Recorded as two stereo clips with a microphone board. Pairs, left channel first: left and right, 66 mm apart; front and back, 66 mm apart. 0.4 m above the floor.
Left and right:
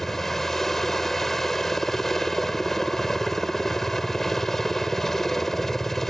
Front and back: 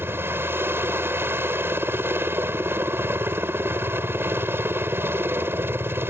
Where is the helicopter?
170° left.